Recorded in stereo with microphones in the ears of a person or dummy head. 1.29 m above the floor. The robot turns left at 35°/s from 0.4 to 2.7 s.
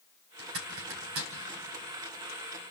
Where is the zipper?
70° right (ahead or behind), 3 m; by 1.3 s 65° right (ahead or behind), 3 m.